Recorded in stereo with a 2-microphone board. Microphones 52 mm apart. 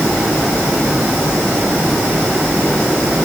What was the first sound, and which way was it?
Only background noise.